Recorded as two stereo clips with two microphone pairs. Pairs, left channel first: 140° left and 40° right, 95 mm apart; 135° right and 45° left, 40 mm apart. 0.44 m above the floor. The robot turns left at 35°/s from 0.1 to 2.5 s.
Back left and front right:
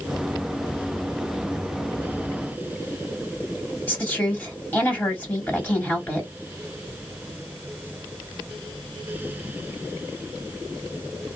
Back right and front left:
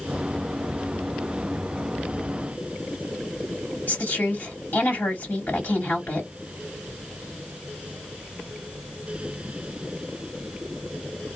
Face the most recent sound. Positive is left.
turn(degrees=-150)